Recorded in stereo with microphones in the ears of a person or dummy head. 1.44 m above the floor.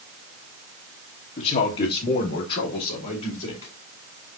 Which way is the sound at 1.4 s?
35° left (ahead or behind).